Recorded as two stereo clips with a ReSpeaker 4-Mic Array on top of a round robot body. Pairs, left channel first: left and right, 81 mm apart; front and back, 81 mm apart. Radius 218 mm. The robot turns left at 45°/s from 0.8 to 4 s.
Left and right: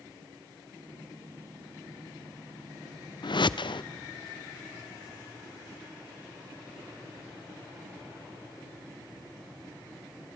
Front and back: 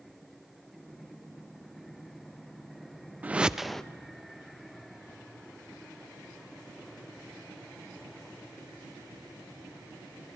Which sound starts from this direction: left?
A whoosh, at 3.2 s.